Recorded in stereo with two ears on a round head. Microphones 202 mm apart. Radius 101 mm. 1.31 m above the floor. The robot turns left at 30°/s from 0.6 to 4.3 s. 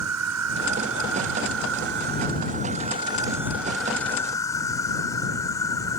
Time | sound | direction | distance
0.0 | an insect | 85° right | ?